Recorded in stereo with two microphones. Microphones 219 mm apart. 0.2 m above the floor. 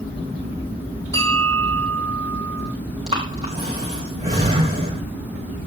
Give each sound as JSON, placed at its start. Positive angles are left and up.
{"t": 1.1, "sound": "a bell", "side_deg": 15, "distance_m": 5.0}
{"t": 3.1, "sound": "breathing", "side_deg": -25, "distance_m": 4.0}